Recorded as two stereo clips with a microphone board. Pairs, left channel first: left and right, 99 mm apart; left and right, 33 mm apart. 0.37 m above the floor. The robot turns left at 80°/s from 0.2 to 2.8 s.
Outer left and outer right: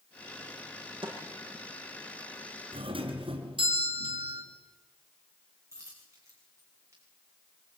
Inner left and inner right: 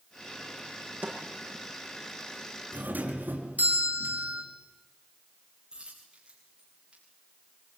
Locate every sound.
1.0 s a snare drum: 60° right (ahead or behind), 7.5 m; by 1.2 s 50° right (ahead or behind), 7.5 m
2.7 s a doorbell: 65° right (ahead or behind), 5 m; by 4.4 s 60° right (ahead or behind), 5 m
5.7 s a dropped coin: 30° right (ahead or behind), 7.5 m